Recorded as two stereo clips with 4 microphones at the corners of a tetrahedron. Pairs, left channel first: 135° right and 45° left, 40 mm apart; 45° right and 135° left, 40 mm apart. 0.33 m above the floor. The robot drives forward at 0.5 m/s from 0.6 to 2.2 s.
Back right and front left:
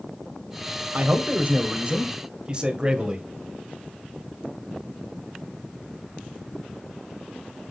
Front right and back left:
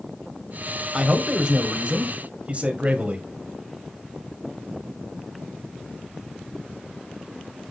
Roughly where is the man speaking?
Left.